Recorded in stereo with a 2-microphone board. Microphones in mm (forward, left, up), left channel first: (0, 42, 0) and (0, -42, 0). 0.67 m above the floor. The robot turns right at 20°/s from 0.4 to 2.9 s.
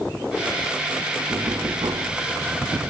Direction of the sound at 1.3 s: 50° right (ahead or behind).